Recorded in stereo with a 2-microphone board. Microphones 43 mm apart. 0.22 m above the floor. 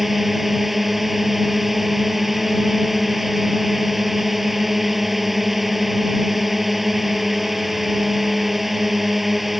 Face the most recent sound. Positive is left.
turn(degrees=-5)  # may be behind; listen again after turning